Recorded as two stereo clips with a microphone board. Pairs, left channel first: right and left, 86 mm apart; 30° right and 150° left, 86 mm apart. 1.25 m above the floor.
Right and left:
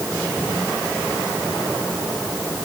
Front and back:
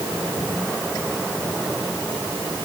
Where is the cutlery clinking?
No cutlery clinking in this recording.